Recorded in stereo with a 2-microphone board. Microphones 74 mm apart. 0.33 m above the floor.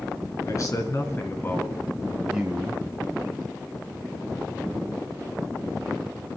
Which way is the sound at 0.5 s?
50° left (ahead or behind).